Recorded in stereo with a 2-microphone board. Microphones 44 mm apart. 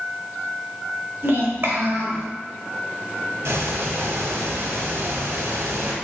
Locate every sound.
1.2 s a child speaking: 55° right (ahead or behind), 0.8 m; by 2.3 s 65° right (ahead or behind), 1.2 m
3.5 s ticking: 85° right, 0.7 m